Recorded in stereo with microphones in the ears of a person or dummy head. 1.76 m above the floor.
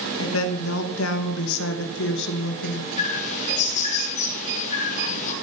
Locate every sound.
0.2 s a woman speaking: 80° left, 3 m; by 2.9 s 60° left (ahead or behind), 2 m
3.0 s a bird: 45° left (ahead or behind), 3.5 m